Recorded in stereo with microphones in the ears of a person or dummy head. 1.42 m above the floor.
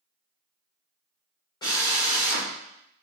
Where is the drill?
20° left (ahead or behind), 1.8 m.